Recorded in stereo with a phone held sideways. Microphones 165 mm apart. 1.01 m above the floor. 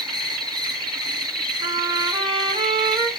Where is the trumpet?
25° right (ahead or behind), 5 m.